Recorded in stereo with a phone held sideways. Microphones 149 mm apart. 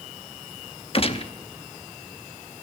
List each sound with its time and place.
0.9 s a gunshot: 40° left (ahead or behind), 0.7 m